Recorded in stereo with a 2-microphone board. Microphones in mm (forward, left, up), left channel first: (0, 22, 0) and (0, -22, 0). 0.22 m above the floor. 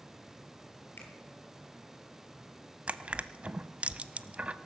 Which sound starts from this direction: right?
Crushing, at 2.9 s.